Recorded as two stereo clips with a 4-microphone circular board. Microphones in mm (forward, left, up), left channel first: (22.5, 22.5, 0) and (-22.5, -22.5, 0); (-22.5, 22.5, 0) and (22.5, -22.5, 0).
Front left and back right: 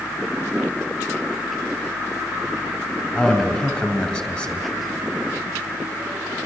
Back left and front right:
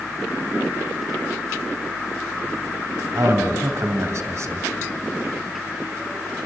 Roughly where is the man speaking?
Ahead.